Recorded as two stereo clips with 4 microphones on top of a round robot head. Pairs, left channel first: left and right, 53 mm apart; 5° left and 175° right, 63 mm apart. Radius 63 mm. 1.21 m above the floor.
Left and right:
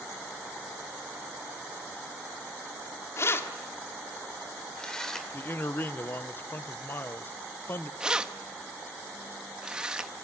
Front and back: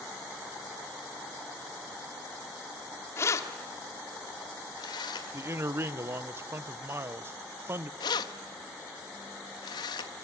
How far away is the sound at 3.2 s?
About 2.0 m.